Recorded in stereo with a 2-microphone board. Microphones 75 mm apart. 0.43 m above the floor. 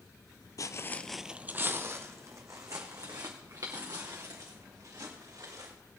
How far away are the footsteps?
About 0.6 m.